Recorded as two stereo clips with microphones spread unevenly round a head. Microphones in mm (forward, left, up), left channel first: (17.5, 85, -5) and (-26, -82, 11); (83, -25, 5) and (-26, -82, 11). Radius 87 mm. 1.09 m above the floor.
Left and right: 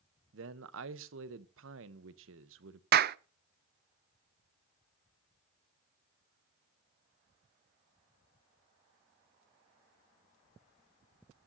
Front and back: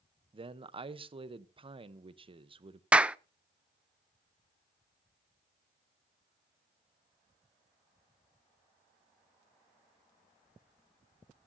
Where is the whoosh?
I don't hear a whoosh.